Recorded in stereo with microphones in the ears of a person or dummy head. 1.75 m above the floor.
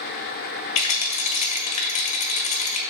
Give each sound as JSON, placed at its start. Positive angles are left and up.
{"t": 0.8, "sound": "a rattle", "side_deg": 35, "distance_m": 1.6}